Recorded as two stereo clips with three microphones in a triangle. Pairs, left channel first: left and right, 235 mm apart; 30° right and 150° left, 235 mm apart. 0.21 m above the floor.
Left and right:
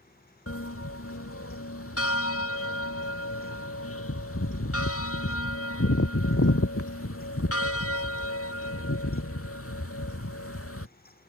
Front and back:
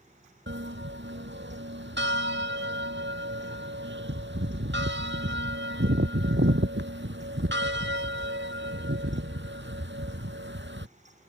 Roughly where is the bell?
Left.